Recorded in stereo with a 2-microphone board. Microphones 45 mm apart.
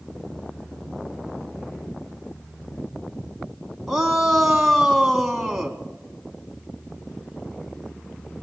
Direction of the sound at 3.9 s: 5° right (ahead or behind).